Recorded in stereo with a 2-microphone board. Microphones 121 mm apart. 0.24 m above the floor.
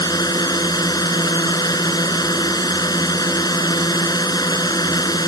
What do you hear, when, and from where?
0.0 s a drone: 35° left (ahead or behind)